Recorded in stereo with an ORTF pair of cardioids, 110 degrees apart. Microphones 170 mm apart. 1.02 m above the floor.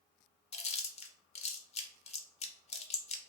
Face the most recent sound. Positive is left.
turn(degrees=40)